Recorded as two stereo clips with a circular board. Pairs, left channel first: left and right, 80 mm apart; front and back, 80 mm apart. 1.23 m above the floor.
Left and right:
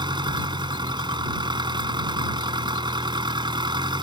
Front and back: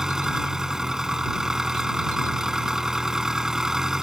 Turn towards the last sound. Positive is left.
turn(degrees=-100)